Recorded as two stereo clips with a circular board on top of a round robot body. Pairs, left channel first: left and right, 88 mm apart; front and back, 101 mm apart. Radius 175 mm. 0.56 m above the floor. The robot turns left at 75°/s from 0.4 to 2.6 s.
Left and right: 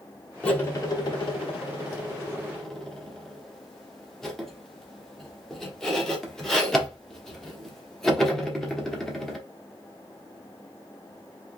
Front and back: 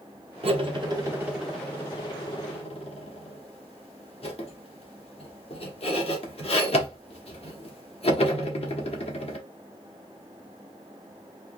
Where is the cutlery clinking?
170° left, 1.3 m; by 9.4 s 5° left, 1.3 m.